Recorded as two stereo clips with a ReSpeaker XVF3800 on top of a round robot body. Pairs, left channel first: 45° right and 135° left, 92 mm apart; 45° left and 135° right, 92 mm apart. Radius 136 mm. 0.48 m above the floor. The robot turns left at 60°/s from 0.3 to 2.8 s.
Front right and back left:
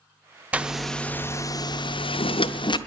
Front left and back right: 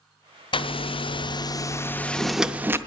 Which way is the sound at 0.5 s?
60° left.